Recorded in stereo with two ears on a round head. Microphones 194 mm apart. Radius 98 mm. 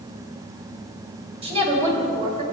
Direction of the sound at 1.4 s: 30° right (ahead or behind).